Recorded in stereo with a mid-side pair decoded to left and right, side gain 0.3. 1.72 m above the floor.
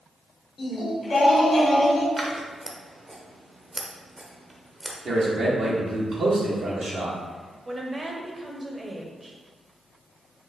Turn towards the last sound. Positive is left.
turn(degrees=-30)